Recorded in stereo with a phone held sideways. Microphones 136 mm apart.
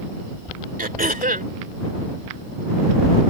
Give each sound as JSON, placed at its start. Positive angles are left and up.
{"t": 0.8, "sound": "throat clearing", "side_deg": -80}